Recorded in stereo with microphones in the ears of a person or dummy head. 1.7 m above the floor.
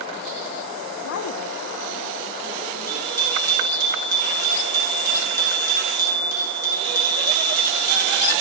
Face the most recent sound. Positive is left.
turn(degrees=-15)  # may be behind; listen again after turning